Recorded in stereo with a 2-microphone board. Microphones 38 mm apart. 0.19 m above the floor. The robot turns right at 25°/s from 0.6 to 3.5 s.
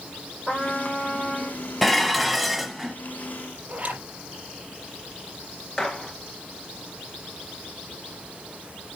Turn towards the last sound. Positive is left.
turn(degrees=15)  # may be behind; listen again after turning